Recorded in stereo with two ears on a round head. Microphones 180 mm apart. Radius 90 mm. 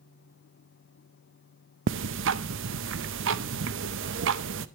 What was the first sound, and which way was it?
Ticking, 60° right (ahead or behind).